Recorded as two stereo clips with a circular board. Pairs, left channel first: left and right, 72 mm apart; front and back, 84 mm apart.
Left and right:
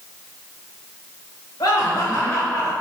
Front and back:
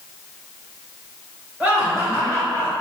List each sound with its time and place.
1.6 s laughter: 110° left, 1.7 m; by 2.7 s 150° left, 1.5 m